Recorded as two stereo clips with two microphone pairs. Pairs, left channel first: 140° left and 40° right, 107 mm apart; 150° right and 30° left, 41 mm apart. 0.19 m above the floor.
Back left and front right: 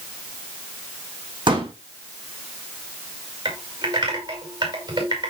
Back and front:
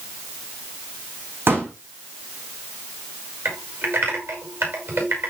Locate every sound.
1.5 s a pop: straight ahead, 4.5 m
3.5 s typing on a keyboard: straight ahead, 6 m